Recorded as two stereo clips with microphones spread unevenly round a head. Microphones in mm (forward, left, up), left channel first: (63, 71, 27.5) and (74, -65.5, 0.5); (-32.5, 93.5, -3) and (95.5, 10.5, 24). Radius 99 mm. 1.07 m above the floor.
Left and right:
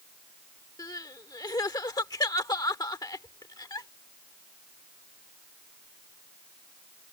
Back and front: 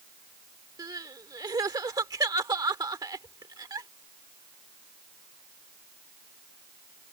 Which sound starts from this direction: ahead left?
Crying, at 0.8 s.